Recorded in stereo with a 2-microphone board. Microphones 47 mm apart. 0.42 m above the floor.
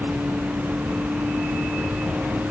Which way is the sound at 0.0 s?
50° right (ahead or behind).